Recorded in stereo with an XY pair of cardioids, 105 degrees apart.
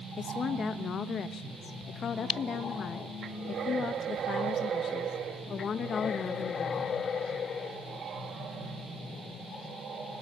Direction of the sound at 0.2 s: 55° left.